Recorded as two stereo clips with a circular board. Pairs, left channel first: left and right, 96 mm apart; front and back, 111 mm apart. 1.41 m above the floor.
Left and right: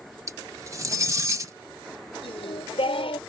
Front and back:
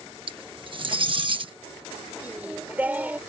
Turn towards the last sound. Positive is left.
turn(degrees=105)